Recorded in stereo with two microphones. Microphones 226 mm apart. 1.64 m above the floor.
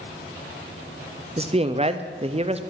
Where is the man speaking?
30° right (ahead or behind), 0.5 m.